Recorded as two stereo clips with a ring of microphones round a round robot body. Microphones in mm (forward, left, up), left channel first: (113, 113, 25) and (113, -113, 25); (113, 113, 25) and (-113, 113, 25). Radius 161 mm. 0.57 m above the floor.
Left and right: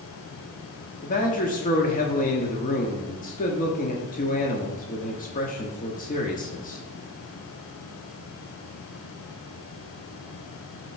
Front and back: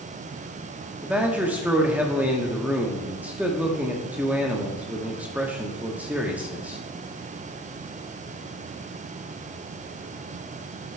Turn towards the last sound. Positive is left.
turn(degrees=100)